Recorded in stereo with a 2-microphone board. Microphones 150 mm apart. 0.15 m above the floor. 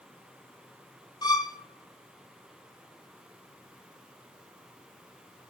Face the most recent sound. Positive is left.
turn(degrees=30)  # may be behind; listen again after turning